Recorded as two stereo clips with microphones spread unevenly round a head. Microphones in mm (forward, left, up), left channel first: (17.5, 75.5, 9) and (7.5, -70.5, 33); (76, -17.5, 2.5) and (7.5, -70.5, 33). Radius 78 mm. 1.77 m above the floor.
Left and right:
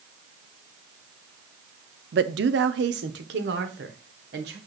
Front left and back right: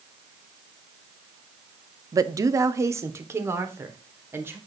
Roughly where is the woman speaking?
Right.